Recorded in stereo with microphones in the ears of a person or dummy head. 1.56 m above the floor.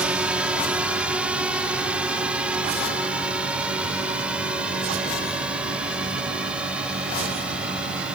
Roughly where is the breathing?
No breathing in this recording.